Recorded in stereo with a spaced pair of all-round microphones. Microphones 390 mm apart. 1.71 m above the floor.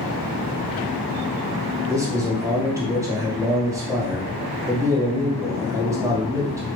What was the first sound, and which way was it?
A man speaking, 10° right (ahead or behind).